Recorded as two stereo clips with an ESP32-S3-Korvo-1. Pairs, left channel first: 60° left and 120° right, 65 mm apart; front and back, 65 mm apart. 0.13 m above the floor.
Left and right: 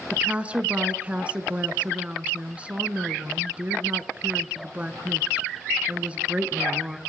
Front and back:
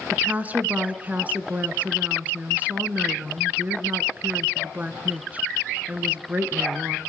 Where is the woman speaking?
160° right, 1.6 m.